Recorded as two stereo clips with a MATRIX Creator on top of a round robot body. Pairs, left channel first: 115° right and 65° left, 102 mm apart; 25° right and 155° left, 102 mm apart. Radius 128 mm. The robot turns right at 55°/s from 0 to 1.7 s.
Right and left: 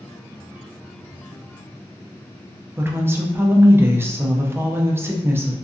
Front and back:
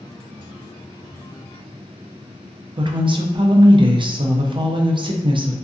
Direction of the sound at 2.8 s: 130° left.